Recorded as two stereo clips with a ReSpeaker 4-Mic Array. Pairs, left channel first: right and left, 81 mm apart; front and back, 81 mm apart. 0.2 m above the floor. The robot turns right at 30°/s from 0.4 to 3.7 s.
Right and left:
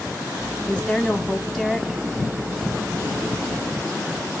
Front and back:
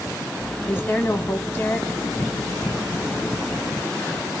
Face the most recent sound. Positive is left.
turn(degrees=60)